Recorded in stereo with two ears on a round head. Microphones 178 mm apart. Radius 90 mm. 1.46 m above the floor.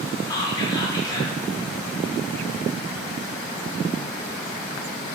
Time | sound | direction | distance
0.3 | whispering | 20° left (ahead or behind) | 0.8 m